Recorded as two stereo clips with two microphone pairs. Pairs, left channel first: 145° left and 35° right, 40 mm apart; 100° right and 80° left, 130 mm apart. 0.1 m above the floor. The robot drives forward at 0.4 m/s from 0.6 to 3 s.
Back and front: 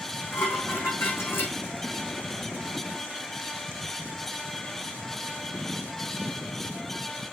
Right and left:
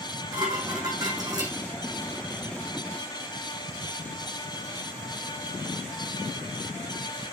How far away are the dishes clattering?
About 4 m.